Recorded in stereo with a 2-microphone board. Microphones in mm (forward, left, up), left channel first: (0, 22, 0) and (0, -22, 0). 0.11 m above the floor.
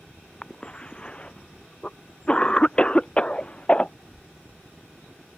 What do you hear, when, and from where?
0.4 s a cough: 25° left (ahead or behind)